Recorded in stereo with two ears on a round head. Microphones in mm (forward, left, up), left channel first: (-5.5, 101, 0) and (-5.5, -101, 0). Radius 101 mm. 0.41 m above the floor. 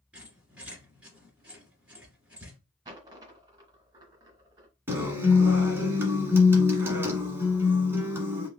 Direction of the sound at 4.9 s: 10° right (ahead or behind).